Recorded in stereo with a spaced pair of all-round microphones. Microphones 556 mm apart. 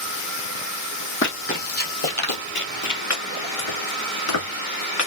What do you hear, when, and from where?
1.2 s running footsteps: 20° left (ahead or behind), 2.5 m; by 3.0 s 35° left (ahead or behind), 1.4 m
3.1 s chopping: 65° left (ahead or behind), 2.5 m